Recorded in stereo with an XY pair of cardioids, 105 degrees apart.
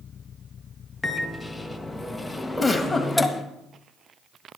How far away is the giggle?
About 2 m.